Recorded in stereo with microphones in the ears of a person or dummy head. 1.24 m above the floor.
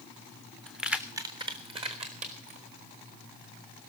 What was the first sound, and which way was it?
Keys jangling, 5° left (ahead or behind).